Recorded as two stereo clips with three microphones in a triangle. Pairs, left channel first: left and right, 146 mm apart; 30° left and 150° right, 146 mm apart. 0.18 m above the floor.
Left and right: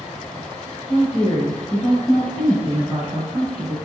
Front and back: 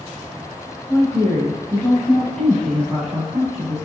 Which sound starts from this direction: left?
A woman speaking, at 0.9 s.